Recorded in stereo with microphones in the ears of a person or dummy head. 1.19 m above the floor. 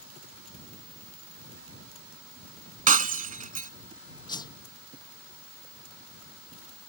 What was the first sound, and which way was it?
Breaking glass, 40° right (ahead or behind).